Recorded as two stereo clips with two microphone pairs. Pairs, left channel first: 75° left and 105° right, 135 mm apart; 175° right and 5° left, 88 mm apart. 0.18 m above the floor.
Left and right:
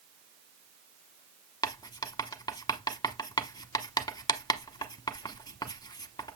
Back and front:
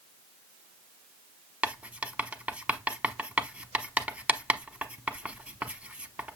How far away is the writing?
About 0.9 m.